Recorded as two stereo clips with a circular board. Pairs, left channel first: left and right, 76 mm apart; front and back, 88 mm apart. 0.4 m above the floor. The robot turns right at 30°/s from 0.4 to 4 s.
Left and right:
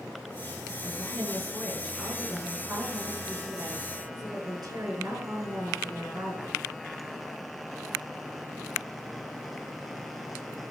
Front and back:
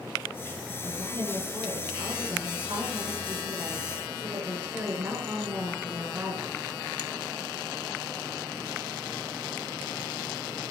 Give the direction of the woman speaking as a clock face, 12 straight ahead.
7 o'clock.